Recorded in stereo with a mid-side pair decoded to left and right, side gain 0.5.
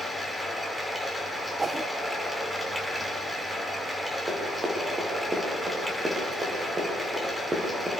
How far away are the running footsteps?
About 8.5 m.